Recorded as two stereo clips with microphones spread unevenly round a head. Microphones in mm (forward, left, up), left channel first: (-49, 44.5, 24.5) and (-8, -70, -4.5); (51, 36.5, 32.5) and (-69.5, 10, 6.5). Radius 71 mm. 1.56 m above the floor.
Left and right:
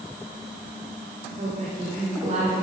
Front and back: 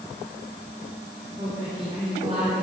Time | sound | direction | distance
1.4 | a woman speaking | 110° right | 5 m